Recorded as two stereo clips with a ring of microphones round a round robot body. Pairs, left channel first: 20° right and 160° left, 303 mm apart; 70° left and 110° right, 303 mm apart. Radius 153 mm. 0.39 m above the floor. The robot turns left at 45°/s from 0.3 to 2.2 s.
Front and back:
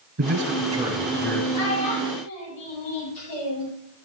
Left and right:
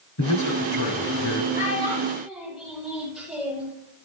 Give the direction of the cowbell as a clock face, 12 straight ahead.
I don't hear a cowbell.